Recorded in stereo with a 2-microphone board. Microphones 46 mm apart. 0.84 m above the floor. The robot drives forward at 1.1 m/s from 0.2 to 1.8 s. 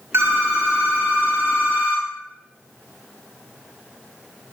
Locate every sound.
0.1 s a phone ringing: 75° right (ahead or behind), 1.0 m; by 2.1 s 25° right (ahead or behind), 2 m